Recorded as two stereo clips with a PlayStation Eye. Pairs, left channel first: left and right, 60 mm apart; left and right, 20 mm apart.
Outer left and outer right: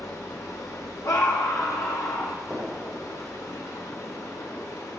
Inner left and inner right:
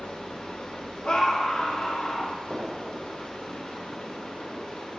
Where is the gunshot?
20° right (ahead or behind), 4 m.